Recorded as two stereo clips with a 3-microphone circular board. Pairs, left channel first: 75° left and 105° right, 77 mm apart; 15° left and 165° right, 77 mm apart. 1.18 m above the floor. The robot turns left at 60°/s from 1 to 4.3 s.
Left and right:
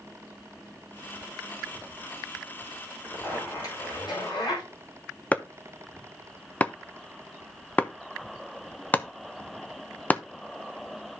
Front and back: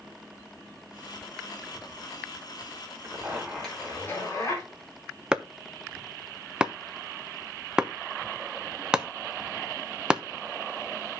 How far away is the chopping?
About 0.6 m.